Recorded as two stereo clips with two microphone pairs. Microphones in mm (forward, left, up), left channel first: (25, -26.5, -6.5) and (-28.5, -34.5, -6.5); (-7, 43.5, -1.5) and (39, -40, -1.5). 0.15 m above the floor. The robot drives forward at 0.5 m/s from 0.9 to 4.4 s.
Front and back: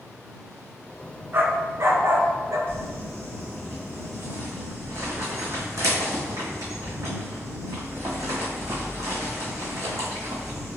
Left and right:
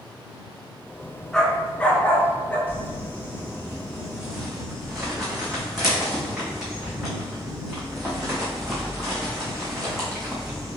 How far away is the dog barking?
About 0.6 m.